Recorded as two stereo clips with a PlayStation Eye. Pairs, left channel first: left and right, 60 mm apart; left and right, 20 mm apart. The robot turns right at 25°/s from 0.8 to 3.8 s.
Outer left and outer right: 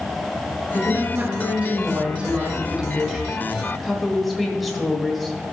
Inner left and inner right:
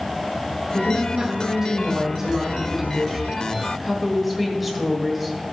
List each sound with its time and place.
0.7 s a woman speaking: 75° right, 1.3 m; by 5.4 s straight ahead, 1.3 m